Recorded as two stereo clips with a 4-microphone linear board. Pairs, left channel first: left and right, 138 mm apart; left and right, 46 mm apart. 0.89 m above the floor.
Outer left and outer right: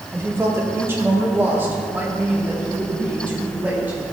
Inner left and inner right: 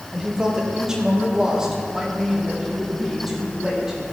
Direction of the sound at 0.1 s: 20° right (ahead or behind).